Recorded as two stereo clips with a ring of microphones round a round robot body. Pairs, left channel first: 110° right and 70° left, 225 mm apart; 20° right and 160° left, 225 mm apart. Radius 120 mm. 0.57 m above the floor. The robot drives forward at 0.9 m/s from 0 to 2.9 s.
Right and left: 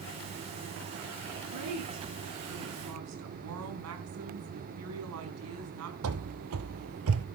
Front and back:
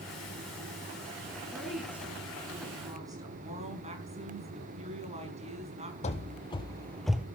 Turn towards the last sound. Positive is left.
turn(degrees=75)